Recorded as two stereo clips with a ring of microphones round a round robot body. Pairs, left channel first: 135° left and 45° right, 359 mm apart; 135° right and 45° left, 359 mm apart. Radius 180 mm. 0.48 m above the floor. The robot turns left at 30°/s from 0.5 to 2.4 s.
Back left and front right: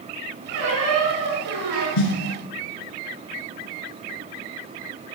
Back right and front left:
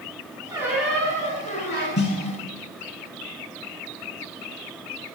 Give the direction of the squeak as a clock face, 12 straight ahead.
1 o'clock.